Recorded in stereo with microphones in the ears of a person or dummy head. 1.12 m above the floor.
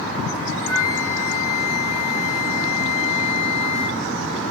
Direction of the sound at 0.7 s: 15° left (ahead or behind).